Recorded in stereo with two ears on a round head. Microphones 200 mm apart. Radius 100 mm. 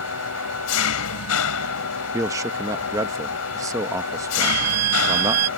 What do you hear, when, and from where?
0.0 s an engine running: 80° left
2.1 s a man speaking: 15° right (ahead or behind)
4.4 s a violin: 85° right